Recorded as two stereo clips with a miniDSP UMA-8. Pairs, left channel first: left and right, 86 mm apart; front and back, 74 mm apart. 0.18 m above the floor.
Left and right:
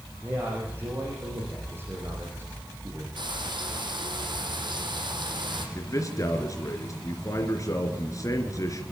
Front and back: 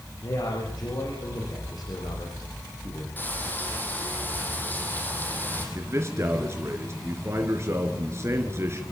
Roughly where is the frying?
Ahead right.